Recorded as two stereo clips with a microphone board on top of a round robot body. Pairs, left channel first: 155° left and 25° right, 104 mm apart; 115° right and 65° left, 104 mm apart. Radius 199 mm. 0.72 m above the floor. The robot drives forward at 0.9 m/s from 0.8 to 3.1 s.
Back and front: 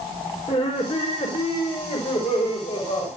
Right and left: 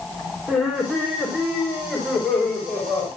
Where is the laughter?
155° left, 4 m; by 3.1 s 165° left, 6 m.